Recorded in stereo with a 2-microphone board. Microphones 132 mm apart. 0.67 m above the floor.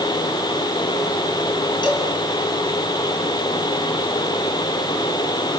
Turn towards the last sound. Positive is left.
turn(degrees=40)  # may be behind; listen again after turning